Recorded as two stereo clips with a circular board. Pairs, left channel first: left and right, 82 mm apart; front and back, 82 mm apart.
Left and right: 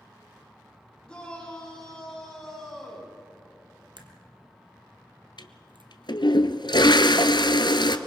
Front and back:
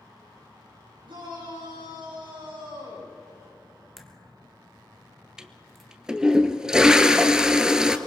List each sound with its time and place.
1.1 s a shout: 170° left, 8.5 m; by 3.1 s 175° left, 9 m
4.0 s a crack: 90° right, 1.8 m
5.4 s a toilet flushing: 100° left, 0.9 m